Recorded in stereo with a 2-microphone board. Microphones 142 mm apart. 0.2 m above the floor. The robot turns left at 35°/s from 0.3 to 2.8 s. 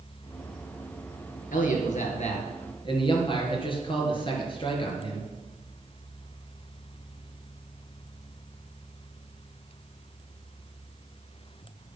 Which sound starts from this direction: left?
A man speaking, at 1.5 s.